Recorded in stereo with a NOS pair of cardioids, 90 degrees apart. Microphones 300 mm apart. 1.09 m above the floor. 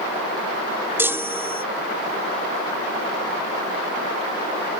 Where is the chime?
10° right.